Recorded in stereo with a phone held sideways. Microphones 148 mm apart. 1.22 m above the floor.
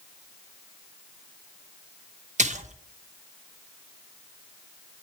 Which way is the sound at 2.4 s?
55° right (ahead or behind).